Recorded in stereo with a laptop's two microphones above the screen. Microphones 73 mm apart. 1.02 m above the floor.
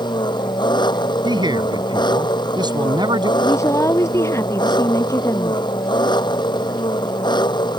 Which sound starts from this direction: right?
A man speaking, at 1.2 s.